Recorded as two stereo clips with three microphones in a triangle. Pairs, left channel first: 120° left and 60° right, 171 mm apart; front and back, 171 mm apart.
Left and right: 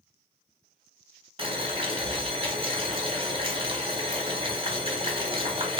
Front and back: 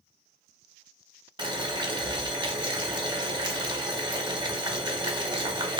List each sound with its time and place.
1.4 s boiling: 115° right, 0.7 m